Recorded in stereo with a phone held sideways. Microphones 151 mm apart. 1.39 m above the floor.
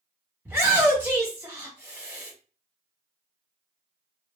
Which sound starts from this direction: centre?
A shout, at 0.5 s.